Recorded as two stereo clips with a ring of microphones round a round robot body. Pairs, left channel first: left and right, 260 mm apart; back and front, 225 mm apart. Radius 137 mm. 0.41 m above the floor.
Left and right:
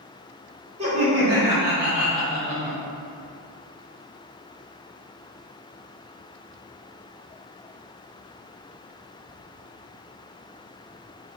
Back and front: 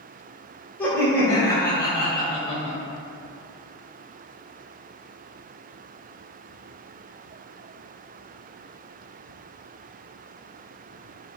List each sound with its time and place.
0.8 s laughter: 105° right, 1.5 m; by 2.8 s 155° left, 1.5 m